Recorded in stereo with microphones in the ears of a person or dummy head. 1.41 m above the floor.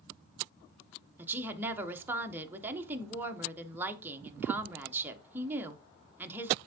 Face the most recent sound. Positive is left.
turn(degrees=-15)  # may be behind; listen again after turning